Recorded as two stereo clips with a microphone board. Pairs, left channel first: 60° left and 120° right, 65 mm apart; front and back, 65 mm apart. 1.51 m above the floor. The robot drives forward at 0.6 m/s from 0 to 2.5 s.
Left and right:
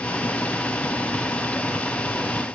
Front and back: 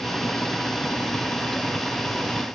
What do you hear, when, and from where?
Only background noise.